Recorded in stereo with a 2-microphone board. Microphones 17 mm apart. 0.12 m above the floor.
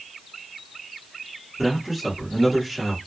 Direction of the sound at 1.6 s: 20° right (ahead or behind).